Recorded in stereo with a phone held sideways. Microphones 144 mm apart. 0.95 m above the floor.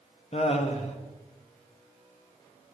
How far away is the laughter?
About 1.1 m.